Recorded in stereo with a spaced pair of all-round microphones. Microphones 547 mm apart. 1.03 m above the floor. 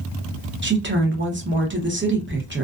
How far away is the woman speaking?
About 0.7 m.